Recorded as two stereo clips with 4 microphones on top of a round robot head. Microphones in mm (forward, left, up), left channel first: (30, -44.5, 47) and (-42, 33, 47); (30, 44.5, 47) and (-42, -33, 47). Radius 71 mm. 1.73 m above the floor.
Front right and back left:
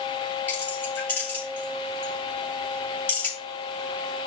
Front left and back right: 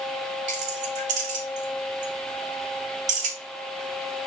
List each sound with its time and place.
0.5 s keys jangling: 120° right, 5 m